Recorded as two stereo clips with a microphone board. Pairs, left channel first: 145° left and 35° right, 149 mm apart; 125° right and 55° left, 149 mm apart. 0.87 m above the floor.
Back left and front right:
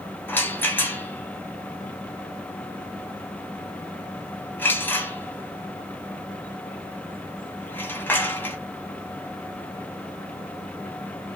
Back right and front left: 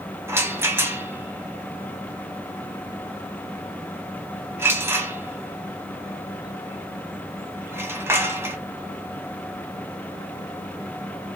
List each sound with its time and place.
0.3 s a rattle: 95° left, 0.7 m